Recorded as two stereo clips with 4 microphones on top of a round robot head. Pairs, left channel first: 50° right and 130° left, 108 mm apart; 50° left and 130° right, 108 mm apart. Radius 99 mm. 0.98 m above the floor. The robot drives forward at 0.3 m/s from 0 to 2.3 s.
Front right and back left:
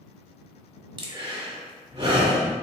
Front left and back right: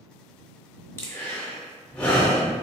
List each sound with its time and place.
1.0 s breathing: 115° left, 1.2 m; by 2.5 s 130° left, 1.4 m